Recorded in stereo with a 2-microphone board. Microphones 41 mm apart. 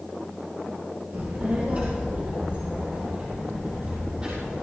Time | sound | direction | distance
1.1 | a child speaking | 55° right (ahead or behind) | 2 m